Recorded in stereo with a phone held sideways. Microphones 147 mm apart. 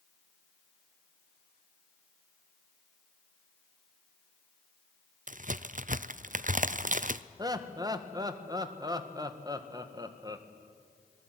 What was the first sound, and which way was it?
A crack, 60° right (ahead or behind).